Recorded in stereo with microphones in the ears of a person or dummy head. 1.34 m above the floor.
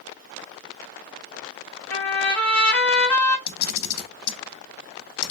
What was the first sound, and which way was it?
A trumpet, 15° left (ahead or behind).